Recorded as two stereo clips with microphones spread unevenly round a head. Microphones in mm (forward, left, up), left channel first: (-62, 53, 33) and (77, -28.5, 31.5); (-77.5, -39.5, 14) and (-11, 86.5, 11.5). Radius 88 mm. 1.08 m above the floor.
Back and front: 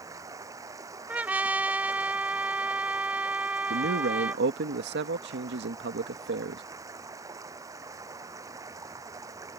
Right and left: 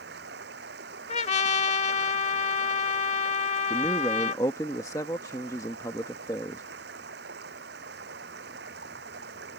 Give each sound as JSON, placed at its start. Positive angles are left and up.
{"t": 0.0, "sound": "running water", "azimuth_deg": 40}
{"t": 1.1, "sound": "a trumpet", "azimuth_deg": -110}
{"t": 3.7, "sound": "a man speaking", "azimuth_deg": -45}